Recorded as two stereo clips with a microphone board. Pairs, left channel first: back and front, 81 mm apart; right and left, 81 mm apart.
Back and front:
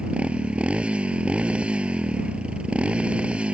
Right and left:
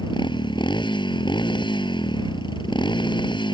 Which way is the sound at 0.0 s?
75° right.